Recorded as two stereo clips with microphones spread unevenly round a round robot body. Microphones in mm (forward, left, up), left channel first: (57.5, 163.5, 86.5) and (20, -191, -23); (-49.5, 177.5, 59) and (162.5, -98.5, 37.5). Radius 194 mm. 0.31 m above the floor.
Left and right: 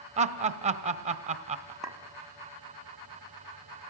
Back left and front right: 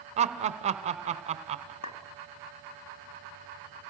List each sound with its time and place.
0.2 s laughter: 105° right, 1.2 m
1.8 s a clink: straight behind, 1.3 m